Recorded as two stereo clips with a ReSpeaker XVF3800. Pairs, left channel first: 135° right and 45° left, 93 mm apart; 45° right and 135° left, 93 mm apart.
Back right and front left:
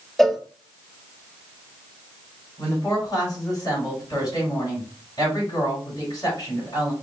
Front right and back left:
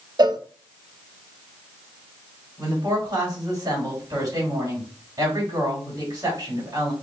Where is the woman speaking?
175° right, 3 m.